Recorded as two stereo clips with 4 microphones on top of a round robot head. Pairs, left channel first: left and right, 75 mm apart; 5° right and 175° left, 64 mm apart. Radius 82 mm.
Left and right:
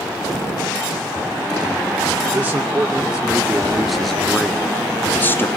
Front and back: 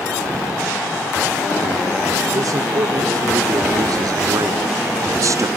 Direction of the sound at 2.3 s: 165° right.